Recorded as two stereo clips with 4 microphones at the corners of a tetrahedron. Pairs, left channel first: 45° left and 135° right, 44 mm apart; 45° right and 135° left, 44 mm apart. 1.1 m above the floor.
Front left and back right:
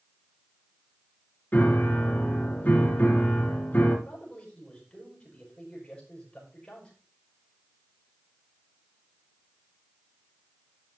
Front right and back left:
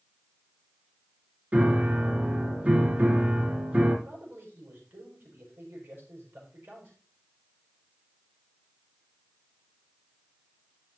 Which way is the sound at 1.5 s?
90° left.